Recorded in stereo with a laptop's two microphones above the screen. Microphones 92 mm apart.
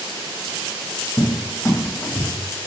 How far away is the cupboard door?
About 0.8 m.